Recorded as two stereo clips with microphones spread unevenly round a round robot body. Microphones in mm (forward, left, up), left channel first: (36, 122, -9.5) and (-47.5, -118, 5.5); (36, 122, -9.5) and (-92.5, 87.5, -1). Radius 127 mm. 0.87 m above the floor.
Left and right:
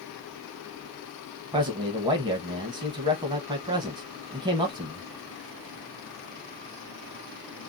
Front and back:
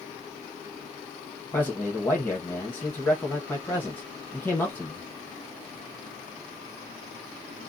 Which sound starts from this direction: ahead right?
A man speaking, at 1.5 s.